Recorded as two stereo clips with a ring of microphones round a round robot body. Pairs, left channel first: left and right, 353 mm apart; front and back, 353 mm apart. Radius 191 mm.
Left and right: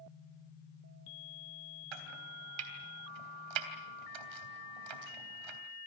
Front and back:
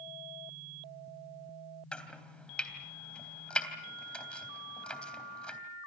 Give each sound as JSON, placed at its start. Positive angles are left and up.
{"t": 1.9, "sound": "chopping", "azimuth_deg": -85, "distance_m": 3.5}